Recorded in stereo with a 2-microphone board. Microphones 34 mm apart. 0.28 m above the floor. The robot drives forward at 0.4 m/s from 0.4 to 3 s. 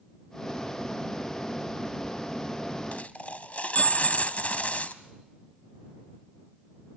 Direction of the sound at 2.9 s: 50° left (ahead or behind).